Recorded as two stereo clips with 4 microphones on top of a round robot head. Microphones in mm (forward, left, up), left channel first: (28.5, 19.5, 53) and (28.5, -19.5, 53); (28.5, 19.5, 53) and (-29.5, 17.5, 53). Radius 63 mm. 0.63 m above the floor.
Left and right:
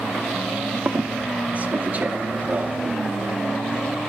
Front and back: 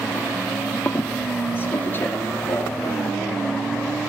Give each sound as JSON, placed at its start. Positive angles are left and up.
{"t": 0.8, "sound": "a squeak", "azimuth_deg": -45, "distance_m": 0.9}